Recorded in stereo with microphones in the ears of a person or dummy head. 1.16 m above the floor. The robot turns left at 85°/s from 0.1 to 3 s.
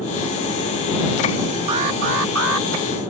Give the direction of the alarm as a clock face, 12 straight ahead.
1 o'clock.